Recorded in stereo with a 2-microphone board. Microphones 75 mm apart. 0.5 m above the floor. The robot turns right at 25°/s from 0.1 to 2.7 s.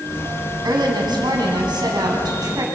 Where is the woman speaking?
105° right, 4.5 m; by 2.6 s 55° right, 4.5 m.